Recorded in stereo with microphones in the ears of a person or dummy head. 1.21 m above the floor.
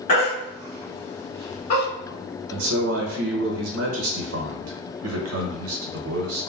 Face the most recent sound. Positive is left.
turn(degrees=-85)